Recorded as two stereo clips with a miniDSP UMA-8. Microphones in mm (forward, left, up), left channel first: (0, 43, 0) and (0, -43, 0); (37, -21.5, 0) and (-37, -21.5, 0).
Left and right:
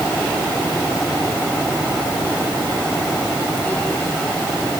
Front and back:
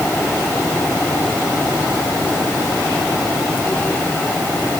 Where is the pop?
No pop in this recording.